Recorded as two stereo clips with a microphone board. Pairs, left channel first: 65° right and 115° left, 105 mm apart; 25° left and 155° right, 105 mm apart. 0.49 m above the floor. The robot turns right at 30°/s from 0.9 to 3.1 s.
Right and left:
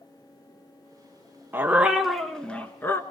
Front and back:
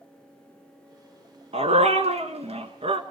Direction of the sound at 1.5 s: 175° right.